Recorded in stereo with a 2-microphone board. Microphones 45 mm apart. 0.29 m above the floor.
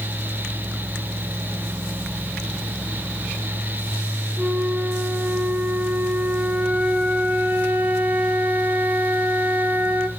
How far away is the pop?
I don't hear a pop.